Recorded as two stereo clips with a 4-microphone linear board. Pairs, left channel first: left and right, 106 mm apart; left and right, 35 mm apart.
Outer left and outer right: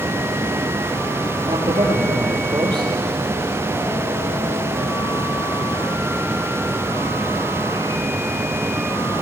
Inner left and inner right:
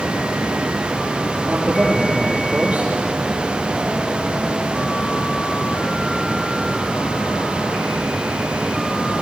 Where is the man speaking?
45° right (ahead or behind), 4 m.